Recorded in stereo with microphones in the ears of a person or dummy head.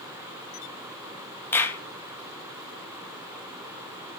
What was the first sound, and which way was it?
A clap, 25° left (ahead or behind).